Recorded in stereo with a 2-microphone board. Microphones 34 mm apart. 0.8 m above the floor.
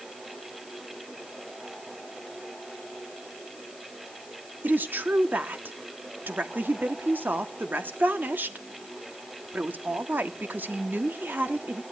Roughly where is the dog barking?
I don't hear a dog barking.